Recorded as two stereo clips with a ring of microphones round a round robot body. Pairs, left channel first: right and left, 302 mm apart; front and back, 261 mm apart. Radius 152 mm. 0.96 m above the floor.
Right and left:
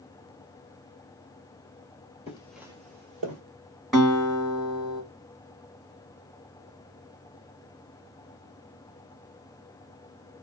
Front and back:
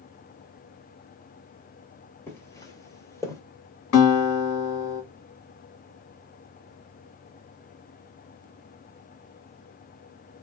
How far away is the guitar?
About 1.5 m.